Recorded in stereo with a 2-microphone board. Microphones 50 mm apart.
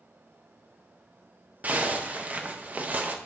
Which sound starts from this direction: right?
A zipper, at 1.6 s.